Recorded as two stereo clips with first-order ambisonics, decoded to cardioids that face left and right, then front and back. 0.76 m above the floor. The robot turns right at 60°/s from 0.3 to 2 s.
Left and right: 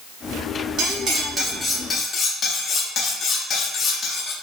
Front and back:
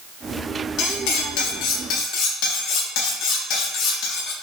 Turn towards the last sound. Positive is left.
turn(degrees=25)